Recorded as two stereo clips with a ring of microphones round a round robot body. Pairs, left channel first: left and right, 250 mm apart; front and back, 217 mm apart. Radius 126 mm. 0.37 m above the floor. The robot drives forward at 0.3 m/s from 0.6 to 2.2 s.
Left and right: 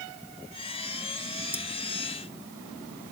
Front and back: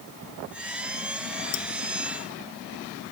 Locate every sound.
1.5 s cutlery clinking: 10° left